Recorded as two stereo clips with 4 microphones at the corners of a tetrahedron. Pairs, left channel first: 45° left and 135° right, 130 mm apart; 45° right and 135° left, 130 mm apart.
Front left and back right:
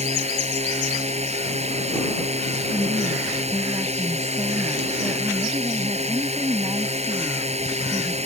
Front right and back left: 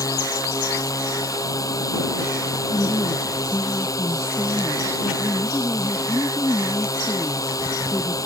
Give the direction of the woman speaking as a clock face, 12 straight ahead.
3 o'clock.